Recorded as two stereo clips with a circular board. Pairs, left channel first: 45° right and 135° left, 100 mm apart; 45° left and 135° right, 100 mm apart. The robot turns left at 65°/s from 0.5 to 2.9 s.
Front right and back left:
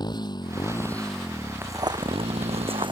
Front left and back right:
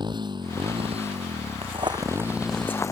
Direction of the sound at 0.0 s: 90° right.